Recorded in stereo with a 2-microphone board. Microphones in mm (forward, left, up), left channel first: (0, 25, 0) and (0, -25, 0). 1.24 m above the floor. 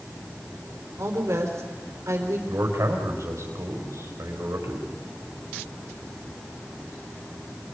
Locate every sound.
1.0 s a woman speaking: 75° right (ahead or behind), 4 m
2.5 s a man speaking: 90° right, 5 m